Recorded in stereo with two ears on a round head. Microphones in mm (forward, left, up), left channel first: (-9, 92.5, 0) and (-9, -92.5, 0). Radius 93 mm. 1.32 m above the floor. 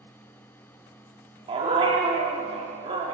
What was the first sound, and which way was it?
A dog barking, 25° right (ahead or behind).